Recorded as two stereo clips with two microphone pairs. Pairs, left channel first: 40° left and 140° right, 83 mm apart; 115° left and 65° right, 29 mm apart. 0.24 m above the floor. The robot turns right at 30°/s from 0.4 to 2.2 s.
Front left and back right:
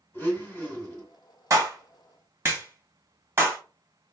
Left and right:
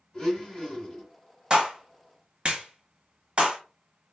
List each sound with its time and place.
0.1 s a blender: 75° left, 1.7 m; by 1.1 s 95° left, 1.7 m
1.5 s a clap: 115° right, 1.1 m; by 3.6 s 95° right, 1.1 m